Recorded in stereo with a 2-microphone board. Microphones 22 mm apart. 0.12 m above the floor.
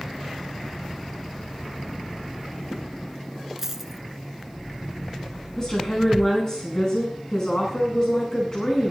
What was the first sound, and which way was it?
A dropped coin, 15° right (ahead or behind).